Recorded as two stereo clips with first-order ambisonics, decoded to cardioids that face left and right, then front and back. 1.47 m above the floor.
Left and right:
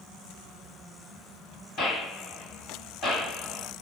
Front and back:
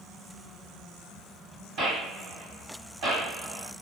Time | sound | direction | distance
1.8 | a gunshot | 140° left | 2.0 m